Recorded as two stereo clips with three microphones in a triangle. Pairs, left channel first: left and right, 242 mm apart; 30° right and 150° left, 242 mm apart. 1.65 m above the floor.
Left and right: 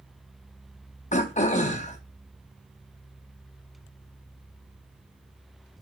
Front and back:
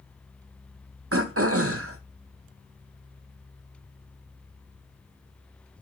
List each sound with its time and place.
1.1 s throat clearing: 145° left, 0.6 m